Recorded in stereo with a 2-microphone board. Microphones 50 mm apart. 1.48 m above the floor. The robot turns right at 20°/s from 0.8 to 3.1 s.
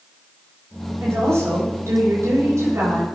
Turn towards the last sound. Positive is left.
turn(degrees=-80)